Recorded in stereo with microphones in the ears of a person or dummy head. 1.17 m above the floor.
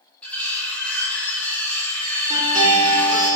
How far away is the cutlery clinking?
About 0.6 m.